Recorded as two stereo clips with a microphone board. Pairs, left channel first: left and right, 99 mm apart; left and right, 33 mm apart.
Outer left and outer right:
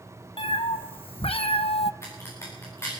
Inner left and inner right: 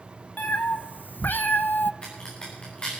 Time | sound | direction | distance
0.4 | a cat meowing | 65° left (ahead or behind) | 1.3 m
2.0 | a crack | 30° left (ahead or behind) | 6.5 m